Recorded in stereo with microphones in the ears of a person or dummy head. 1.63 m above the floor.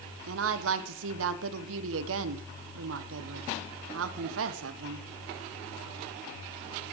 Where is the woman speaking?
70° right (ahead or behind), 1.0 m.